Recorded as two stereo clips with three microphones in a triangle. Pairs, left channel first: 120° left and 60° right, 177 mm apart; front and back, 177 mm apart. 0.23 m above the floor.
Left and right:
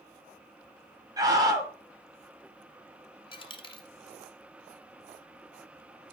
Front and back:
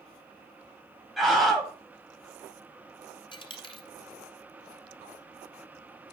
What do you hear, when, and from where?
1.2 s a scream: 90° right, 1.3 m
3.3 s a dropped coin: 60° left, 1.1 m